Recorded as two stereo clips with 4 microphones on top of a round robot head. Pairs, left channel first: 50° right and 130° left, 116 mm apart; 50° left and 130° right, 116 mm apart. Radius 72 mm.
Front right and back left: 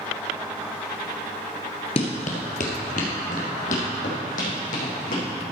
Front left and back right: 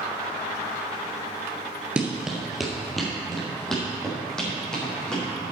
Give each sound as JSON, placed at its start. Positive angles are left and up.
{"t": 2.0, "sound": "running footsteps", "azimuth_deg": -55, "distance_m": 1.5}